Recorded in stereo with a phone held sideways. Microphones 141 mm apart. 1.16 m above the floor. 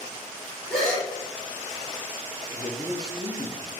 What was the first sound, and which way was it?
A gasp, centre (ahead or behind).